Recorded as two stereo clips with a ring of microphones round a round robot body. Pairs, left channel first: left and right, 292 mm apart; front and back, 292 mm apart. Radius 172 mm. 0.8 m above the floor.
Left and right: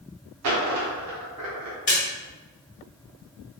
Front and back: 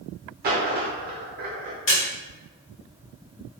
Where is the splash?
40° left, 1.8 m.